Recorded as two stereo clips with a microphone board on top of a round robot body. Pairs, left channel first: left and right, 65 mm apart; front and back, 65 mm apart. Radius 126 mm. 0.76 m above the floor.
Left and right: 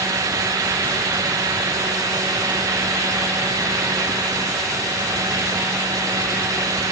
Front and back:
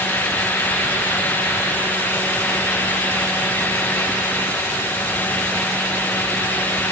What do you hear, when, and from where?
Only background noise.